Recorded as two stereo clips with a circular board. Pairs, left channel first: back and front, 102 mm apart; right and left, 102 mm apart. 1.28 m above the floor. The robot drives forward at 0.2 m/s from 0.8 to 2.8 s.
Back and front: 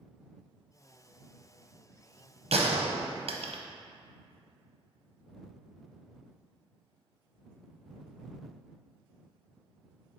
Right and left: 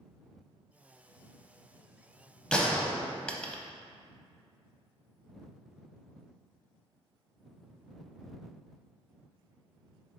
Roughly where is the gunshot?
Ahead.